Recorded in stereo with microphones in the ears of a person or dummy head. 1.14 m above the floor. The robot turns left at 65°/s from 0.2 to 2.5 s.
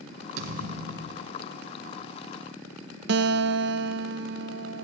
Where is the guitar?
60° right (ahead or behind), 0.8 m.